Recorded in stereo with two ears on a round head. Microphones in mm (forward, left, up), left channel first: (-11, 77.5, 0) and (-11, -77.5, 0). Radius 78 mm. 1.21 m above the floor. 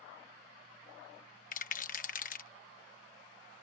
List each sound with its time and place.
1.5 s a rattle: 45° left (ahead or behind)